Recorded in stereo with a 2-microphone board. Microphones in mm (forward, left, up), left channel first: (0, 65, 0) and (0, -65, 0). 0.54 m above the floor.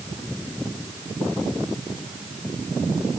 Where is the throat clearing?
No throat clearing in this recording.